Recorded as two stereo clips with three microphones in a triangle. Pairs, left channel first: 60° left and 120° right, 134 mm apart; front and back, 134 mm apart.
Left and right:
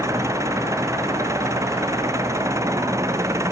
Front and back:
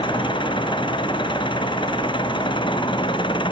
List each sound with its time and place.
0.0 s an engine running: 50° right